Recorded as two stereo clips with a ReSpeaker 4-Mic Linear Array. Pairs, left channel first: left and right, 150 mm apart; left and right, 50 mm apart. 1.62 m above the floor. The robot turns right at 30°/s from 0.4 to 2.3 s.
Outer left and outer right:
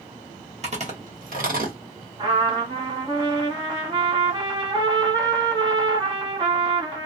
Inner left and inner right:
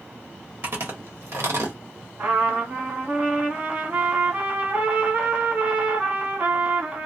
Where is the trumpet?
30° right (ahead or behind), 1.7 m.